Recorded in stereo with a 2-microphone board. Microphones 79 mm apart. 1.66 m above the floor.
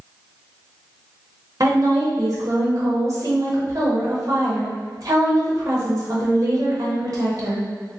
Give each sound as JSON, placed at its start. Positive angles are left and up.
{"t": 1.6, "sound": "a woman speaking", "side_deg": -45, "distance_m": 1.0}